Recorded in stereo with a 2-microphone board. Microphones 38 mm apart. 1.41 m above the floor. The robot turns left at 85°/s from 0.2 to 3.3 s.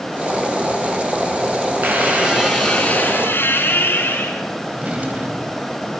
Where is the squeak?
120° right, 7 m; by 4.4 s 115° left, 7 m.